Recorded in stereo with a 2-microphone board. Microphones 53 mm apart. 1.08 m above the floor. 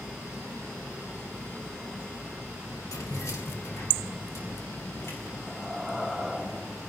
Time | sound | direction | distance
2.9 | keys jangling | 85° left | 2 m
5.5 | breathing | 10° left (ahead or behind) | 1.4 m